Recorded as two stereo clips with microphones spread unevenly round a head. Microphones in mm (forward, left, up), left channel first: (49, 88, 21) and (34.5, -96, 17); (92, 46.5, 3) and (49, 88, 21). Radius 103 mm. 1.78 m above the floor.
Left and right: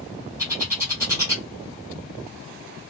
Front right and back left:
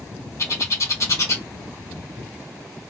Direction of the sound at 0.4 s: 25° right.